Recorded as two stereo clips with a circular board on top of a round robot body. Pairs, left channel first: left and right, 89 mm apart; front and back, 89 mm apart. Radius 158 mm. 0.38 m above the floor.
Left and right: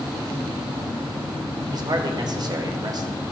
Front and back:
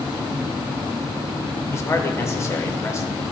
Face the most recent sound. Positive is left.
turn(degrees=-55)